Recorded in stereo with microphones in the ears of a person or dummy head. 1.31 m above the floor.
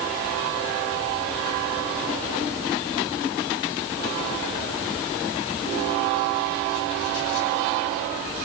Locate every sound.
Only background noise.